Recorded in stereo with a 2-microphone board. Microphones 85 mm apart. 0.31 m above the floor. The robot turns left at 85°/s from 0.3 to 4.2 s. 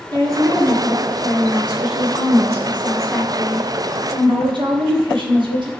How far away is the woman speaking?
About 5 m.